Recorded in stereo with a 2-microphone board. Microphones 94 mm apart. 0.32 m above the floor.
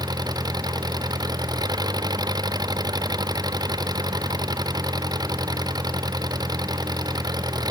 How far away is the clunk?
I don't hear a clunk.